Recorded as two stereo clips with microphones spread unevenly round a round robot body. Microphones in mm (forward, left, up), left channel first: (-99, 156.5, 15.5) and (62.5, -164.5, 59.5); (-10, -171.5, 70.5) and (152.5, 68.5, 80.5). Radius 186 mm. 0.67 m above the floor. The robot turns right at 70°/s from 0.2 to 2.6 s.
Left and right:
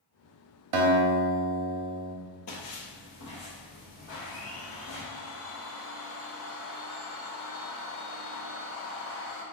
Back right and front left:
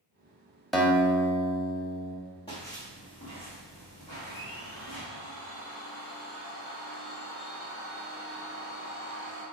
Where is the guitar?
35° right, 1.0 m; by 2.1 s 65° left, 1.0 m.